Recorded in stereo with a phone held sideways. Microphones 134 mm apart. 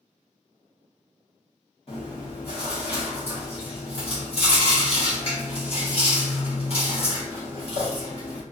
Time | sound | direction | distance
1.9 | chewing | 45° left (ahead or behind) | 1.5 m